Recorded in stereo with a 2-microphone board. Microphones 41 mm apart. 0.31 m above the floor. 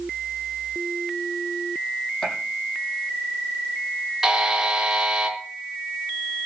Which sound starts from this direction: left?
A gunshot, at 2.2 s.